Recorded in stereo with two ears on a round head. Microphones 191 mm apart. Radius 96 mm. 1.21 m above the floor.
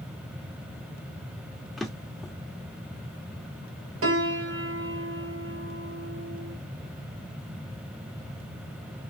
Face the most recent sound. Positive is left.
turn(degrees=-65)  # may be behind; listen again after turning